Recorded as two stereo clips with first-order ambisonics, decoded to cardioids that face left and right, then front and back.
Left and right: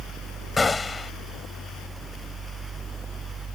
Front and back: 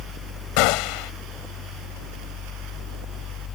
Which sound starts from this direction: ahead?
A gunshot, at 0.6 s.